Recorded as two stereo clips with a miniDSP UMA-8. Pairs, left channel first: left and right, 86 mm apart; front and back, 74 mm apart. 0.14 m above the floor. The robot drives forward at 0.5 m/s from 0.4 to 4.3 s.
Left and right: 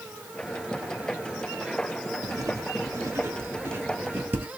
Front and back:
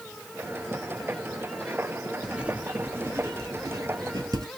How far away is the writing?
About 0.8 m.